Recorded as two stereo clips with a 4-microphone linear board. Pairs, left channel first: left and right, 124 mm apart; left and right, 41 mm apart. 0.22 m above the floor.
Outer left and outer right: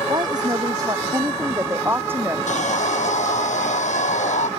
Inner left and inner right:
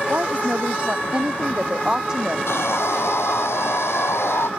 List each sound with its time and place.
0.1 s a woman speaking: 35° right (ahead or behind); by 2.4 s 15° right (ahead or behind)
2.5 s sawing: 80° left